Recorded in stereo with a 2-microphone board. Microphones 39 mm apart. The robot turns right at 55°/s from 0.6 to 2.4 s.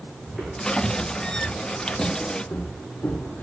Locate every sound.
0.3 s footsteps: centre (ahead or behind), 2 m; by 3.4 s 80° left, 4.5 m